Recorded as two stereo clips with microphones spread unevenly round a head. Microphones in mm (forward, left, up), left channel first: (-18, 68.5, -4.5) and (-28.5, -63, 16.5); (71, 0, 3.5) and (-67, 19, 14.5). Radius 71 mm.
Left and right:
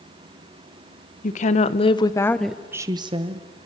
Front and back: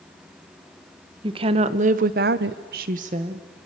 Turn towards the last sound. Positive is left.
turn(degrees=-135)